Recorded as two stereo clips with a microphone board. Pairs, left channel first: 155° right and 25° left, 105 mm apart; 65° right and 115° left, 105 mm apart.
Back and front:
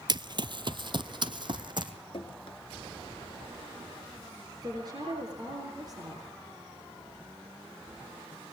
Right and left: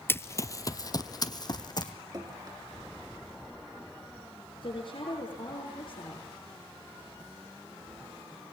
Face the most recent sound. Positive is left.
turn(degrees=-30)